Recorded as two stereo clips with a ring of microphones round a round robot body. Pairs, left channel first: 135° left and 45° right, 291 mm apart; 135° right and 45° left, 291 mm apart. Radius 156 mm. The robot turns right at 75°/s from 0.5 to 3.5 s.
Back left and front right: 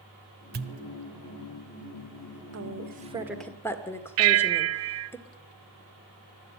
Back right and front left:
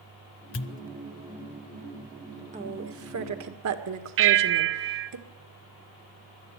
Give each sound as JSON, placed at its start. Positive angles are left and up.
{"t": 0.5, "sound": "a pop", "azimuth_deg": -95, "distance_m": 0.5}
{"t": 2.5, "sound": "a woman speaking", "azimuth_deg": -20, "distance_m": 1.9}
{"t": 4.2, "sound": "a bell", "azimuth_deg": -5, "distance_m": 0.6}